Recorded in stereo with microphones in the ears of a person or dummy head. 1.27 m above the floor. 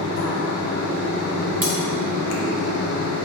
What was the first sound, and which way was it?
A fan, 65° left (ahead or behind).